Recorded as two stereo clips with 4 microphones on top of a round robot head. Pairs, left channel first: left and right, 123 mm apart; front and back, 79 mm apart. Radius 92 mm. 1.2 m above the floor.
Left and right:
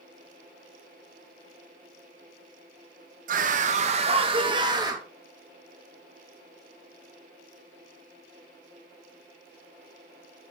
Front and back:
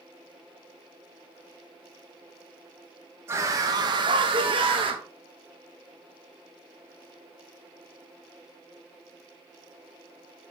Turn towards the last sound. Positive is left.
turn(degrees=-155)